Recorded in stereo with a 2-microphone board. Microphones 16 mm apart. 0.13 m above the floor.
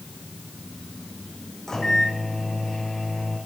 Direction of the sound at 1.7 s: 30° left (ahead or behind).